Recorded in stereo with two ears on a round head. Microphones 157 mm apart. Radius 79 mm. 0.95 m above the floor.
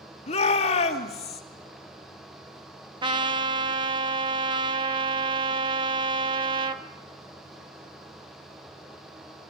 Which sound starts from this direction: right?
A trumpet, at 3.0 s.